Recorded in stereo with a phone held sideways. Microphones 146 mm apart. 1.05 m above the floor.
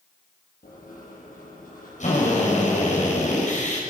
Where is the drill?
60° left (ahead or behind), 6.5 m.